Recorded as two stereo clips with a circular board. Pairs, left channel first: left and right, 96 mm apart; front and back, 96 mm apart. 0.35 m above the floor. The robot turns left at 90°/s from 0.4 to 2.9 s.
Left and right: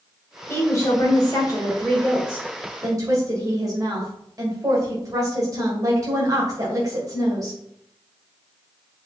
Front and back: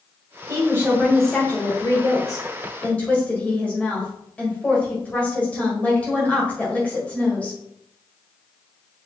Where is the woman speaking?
150° left, 1.8 m; by 7.6 s 65° right, 1.8 m.